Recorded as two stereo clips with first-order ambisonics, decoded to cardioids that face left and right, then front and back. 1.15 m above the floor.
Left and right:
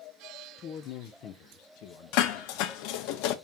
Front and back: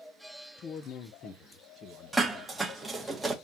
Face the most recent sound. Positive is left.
turn(degrees=95)